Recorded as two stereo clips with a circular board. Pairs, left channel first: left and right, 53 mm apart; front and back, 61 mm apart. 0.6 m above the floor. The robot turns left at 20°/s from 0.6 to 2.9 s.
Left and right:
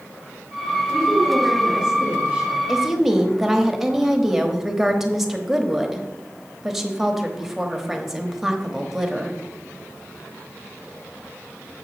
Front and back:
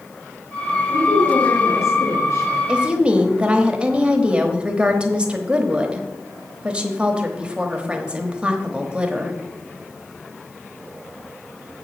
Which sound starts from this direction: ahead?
A woman speaking, at 0.9 s.